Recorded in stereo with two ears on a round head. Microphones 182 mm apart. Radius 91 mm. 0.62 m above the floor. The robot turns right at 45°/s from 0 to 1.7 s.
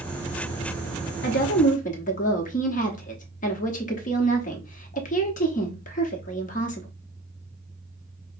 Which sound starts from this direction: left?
A woman speaking, at 1.2 s.